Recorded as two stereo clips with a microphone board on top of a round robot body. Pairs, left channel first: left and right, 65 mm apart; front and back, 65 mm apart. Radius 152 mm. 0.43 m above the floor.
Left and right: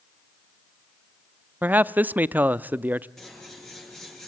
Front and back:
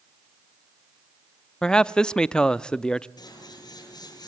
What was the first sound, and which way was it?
A man speaking, 65° right.